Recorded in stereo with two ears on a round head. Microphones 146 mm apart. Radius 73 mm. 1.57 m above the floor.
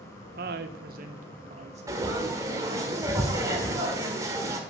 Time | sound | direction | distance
0.4 | a woman speaking | 60° right (ahead or behind) | 1.0 m
1.9 | frying | 20° right (ahead or behind) | 1.8 m